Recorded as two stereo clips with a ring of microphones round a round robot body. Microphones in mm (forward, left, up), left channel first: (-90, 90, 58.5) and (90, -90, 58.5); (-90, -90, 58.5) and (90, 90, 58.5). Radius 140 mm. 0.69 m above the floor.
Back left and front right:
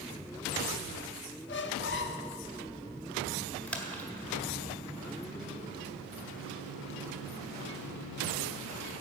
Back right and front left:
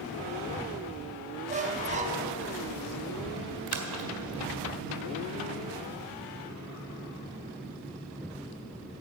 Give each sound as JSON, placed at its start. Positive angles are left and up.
{"t": 1.5, "sound": "a squeak", "azimuth_deg": 100, "distance_m": 0.8}
{"t": 3.7, "sound": "a splash", "azimuth_deg": 50, "distance_m": 1.7}